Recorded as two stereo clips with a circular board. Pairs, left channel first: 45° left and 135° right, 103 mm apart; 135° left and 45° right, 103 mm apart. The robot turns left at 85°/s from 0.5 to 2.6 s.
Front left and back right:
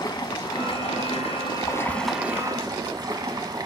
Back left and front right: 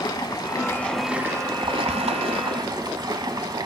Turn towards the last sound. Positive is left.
turn(degrees=-90)